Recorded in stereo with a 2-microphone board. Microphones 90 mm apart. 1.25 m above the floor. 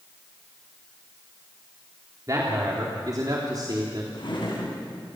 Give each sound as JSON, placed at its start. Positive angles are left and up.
{"t": 2.3, "sound": "a man speaking", "side_deg": -40, "distance_m": 3.5}
{"t": 4.1, "sound": "a drawer", "side_deg": 60, "distance_m": 7.5}